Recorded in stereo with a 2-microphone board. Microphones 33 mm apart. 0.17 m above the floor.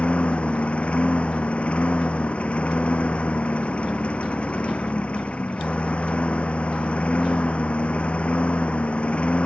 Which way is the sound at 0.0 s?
40° left (ahead or behind).